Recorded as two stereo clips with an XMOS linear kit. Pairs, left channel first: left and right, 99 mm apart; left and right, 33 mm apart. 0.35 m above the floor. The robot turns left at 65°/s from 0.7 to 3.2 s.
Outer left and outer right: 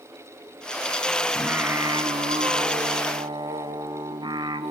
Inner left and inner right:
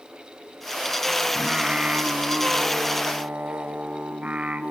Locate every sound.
1.4 s singing: 10° right, 0.7 m; by 4.7 s 130° right, 0.7 m